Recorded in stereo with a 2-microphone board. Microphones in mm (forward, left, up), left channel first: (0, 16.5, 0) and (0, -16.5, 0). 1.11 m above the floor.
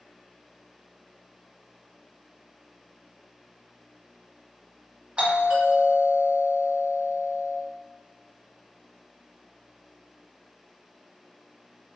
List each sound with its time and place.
5.2 s a doorbell: 35° right (ahead or behind), 1.8 m